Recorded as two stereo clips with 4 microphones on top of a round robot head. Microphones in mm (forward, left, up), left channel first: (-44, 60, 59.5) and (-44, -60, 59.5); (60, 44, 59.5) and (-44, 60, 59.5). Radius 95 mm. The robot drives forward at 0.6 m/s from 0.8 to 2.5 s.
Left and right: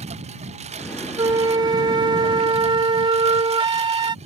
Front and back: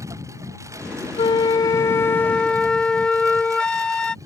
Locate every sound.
0.0 s a lawn mower: 120° right
1.2 s a flute: 40° right; by 4.2 s 90° right